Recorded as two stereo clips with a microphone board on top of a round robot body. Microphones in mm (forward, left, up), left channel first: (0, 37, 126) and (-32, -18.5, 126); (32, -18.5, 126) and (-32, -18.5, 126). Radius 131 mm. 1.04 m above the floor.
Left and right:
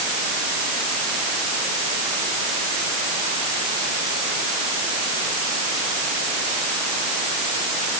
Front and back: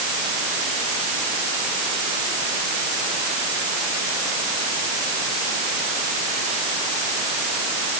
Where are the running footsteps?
I don't hear running footsteps.